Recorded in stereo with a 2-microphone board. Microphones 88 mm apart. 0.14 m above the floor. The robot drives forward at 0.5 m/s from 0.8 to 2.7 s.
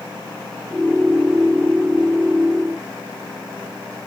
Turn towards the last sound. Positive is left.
No sound to turn to.